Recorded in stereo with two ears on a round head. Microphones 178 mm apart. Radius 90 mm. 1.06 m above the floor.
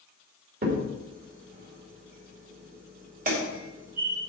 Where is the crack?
45° right (ahead or behind), 2.5 m.